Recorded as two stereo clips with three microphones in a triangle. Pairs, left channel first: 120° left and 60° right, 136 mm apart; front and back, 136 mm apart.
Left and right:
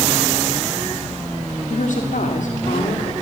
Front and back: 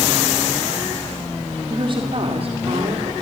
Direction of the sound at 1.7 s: 130° left.